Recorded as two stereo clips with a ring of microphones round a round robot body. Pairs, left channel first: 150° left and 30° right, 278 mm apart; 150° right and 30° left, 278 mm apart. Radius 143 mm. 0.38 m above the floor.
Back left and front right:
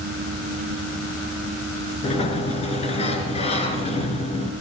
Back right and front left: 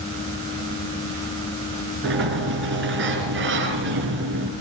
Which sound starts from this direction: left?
A sliding door, at 2.0 s.